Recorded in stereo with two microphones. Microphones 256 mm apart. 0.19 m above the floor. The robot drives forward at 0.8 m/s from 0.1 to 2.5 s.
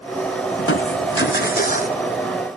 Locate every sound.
0.6 s crushing: 60° left (ahead or behind), 0.8 m; by 2.0 s 30° left (ahead or behind), 1.4 m